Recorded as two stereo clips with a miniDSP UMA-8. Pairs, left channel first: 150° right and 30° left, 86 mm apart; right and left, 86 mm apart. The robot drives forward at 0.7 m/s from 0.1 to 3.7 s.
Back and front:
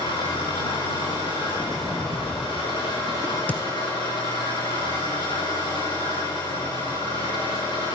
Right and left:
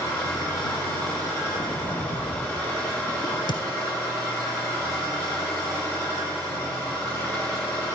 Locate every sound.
0.0 s an engine running: 150° right, 7.5 m; by 8.0 s 155° right, 10 m
1.5 s a sliding door: 75° right, 3 m; by 2.8 s 90° right, 3 m
3.2 s a crack: 70° right, 1.1 m; by 3.6 s 85° right, 1.0 m